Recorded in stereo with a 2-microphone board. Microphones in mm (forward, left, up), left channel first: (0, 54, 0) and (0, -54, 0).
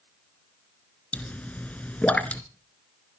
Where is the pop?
15° left (ahead or behind), 1.4 m.